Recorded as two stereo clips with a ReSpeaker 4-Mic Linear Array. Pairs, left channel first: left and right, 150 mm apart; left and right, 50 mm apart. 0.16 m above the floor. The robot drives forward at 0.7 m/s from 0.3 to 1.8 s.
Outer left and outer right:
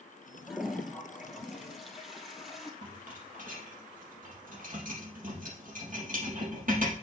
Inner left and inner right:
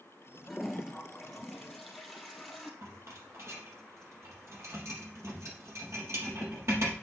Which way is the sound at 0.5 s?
Centre (ahead or behind).